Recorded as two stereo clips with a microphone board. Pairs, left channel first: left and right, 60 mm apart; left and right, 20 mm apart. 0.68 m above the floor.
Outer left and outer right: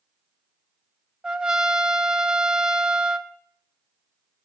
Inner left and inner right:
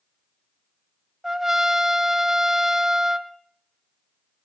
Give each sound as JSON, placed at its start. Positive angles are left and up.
{"t": 1.2, "sound": "a trumpet", "side_deg": -15, "distance_m": 0.9}